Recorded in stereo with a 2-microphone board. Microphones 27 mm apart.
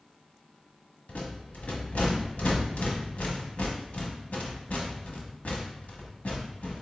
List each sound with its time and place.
1.1 s a rattle: 80° left, 1.0 m